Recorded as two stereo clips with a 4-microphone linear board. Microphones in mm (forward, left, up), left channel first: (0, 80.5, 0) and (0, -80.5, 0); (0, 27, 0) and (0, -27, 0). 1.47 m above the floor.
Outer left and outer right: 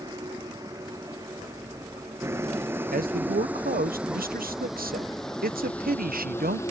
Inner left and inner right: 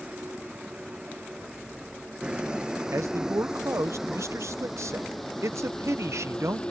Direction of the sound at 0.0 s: 25° right (ahead or behind).